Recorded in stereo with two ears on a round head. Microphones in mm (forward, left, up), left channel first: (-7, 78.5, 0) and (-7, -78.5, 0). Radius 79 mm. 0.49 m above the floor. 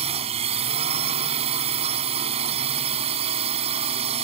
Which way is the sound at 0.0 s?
35° right (ahead or behind).